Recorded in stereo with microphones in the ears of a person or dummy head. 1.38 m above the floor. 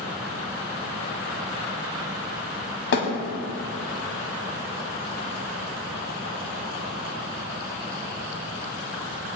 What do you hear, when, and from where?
2.9 s a thud: 65° left (ahead or behind), 2.5 m